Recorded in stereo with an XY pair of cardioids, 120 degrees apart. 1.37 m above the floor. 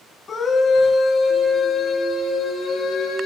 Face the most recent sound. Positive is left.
turn(degrees=60)